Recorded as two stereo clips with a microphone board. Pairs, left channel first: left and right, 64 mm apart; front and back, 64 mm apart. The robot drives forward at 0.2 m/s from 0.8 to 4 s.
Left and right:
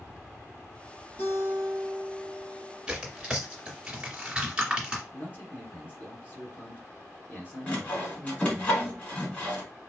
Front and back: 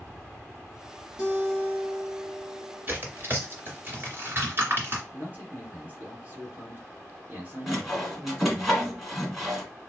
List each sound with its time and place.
1.2 s a guitar: 110° left, 1.9 m; by 2.9 s 125° left, 2.0 m
2.9 s tearing paper: 160° right, 2.0 m; by 5.0 s 165° right, 2 m
5.1 s a man speaking: 135° left, 2 m
7.7 s sawing: 90° left, 1.5 m